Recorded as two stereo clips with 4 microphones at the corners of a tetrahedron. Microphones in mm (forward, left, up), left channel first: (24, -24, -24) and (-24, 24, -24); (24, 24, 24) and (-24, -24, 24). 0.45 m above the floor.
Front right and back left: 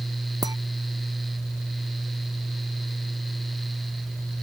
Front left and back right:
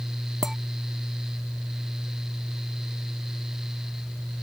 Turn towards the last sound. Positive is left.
turn(degrees=140)